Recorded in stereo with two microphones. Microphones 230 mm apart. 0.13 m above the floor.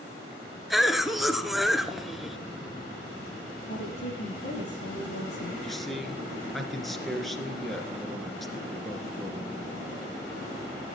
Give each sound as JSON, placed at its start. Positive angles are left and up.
{"t": 0.7, "sound": "a cough", "side_deg": 0, "distance_m": 1.5}
{"t": 3.7, "sound": "a woman speaking", "side_deg": 60, "distance_m": 5.0}
{"t": 5.6, "sound": "a man speaking", "side_deg": 0, "distance_m": 2.0}